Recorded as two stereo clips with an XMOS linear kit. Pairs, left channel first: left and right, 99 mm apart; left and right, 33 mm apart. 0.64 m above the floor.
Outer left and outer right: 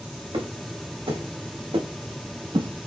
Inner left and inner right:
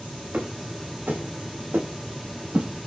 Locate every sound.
0.3 s footsteps: 75° right (ahead or behind), 2 m; by 2.9 s 50° right (ahead or behind), 0.9 m